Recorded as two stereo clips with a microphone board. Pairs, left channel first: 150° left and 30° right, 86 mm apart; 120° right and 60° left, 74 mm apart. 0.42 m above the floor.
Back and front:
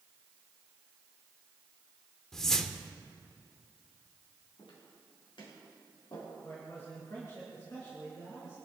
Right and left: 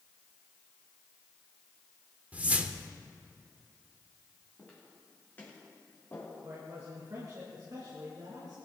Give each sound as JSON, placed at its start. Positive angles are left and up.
{"t": 2.3, "sound": "a whoosh", "azimuth_deg": 75, "distance_m": 0.9}
{"t": 4.6, "sound": "footsteps", "azimuth_deg": 170, "distance_m": 6.0}
{"t": 6.4, "sound": "a man speaking", "azimuth_deg": 95, "distance_m": 4.0}